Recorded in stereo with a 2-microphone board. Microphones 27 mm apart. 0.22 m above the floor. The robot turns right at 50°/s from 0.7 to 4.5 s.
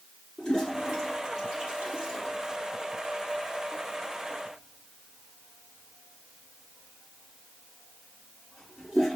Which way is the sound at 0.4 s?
15° left (ahead or behind).